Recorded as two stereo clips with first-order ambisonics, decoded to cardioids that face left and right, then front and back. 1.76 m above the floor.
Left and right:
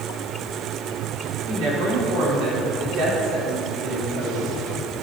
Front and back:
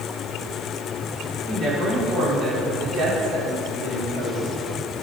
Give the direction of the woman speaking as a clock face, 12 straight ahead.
4 o'clock.